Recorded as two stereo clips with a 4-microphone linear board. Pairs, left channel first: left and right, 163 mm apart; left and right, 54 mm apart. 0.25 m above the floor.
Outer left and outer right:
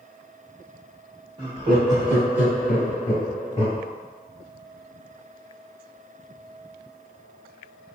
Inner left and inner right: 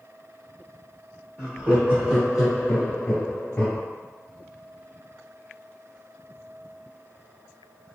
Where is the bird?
No bird in this recording.